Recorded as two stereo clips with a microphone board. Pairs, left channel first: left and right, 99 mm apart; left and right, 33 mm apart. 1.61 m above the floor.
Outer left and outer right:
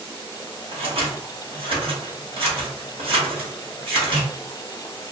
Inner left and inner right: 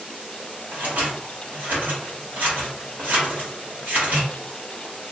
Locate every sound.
0.7 s scissors: 65° right (ahead or behind), 1.2 m